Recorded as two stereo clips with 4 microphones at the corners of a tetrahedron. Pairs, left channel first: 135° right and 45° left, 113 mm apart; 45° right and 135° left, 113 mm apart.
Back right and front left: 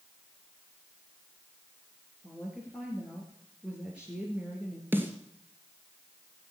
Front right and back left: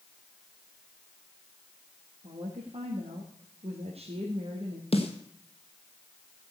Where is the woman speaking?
125° left, 3 m.